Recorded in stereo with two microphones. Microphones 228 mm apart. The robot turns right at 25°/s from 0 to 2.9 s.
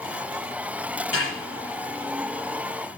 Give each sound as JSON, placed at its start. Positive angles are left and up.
{"t": 1.1, "sound": "a snare drum", "side_deg": 80, "distance_m": 8.5}